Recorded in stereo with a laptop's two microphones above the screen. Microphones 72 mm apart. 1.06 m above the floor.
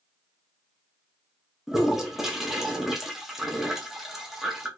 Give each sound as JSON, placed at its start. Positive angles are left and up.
{"t": 1.7, "sound": "a toilet flushing", "side_deg": -5, "distance_m": 0.6}